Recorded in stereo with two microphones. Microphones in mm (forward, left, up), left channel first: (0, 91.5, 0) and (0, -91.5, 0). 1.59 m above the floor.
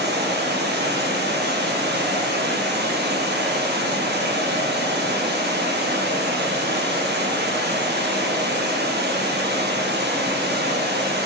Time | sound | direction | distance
0.0 | running water | 65° right (ahead or behind) | 1.2 m